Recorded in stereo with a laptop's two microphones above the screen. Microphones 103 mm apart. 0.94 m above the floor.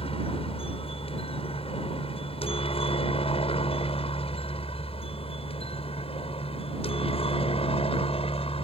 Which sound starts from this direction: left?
A helicopter, at 0.0 s.